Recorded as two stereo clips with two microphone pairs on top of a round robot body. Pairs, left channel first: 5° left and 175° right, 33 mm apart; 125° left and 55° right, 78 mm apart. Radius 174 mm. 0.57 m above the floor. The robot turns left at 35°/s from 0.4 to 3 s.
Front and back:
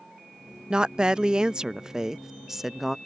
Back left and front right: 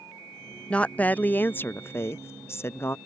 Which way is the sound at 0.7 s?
165° right.